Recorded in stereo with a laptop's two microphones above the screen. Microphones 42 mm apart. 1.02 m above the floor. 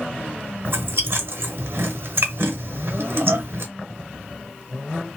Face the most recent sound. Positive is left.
turn(degrees=-60)  # may be behind; listen again after turning